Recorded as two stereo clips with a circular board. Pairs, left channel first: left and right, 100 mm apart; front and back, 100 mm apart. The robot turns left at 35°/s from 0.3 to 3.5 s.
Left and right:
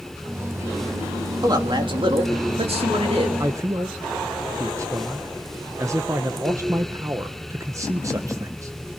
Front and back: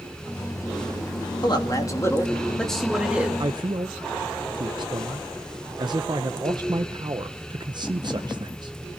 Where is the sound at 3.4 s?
140° right, 0.8 m; by 9.0 s 145° right, 0.8 m.